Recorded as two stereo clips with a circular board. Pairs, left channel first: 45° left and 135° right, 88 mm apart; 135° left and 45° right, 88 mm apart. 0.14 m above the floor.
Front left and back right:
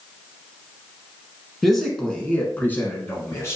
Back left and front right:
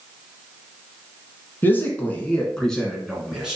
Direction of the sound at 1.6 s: 130° left.